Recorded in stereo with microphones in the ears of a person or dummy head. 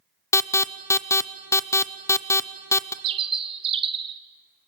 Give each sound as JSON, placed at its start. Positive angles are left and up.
{"t": 0.3, "sound": "an alarm", "side_deg": 15, "distance_m": 0.6}
{"t": 3.0, "sound": "a bird", "side_deg": -25, "distance_m": 0.9}